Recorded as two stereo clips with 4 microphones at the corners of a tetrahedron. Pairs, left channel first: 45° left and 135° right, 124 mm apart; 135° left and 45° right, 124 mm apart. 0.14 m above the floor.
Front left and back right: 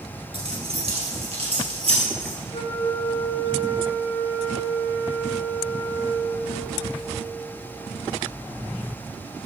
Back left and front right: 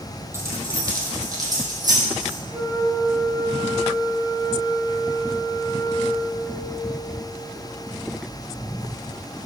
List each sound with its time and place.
0.3 s keys jangling: 110° right, 2 m; by 2.4 s 100° right, 3.5 m
2.5 s a flute: 25° left, 1.8 m